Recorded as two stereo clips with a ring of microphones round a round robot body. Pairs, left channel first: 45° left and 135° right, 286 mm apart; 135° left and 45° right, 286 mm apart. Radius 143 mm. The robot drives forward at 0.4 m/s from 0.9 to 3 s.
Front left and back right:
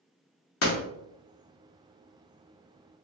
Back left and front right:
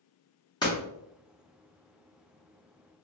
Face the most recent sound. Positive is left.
turn(degrees=120)